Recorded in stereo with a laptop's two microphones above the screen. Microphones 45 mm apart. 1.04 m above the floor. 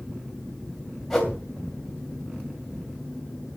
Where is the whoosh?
5° left (ahead or behind), 2.5 m.